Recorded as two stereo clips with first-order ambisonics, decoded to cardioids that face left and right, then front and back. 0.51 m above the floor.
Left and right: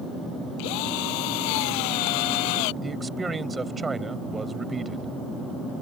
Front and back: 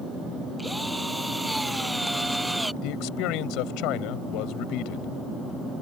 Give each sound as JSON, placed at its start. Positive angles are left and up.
{"t": 0.6, "sound": "a drill", "azimuth_deg": 95}
{"t": 2.8, "sound": "a man speaking", "azimuth_deg": -15}